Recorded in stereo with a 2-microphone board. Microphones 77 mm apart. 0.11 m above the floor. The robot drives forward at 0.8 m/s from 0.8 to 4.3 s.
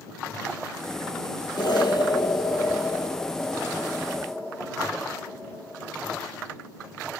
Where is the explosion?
70° left (ahead or behind), 1.2 m; by 6.2 s 30° left (ahead or behind), 2.5 m.